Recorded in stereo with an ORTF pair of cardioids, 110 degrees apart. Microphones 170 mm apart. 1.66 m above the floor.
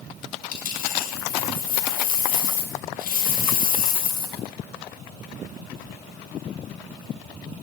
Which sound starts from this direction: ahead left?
A dropped coin, at 0.5 s.